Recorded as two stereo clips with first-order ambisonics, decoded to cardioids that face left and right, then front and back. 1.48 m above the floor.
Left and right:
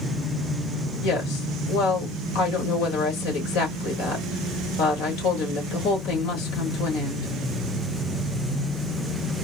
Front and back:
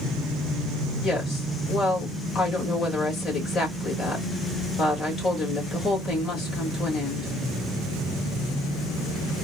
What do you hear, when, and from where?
1.0 s a woman speaking: 65° left, 2.5 m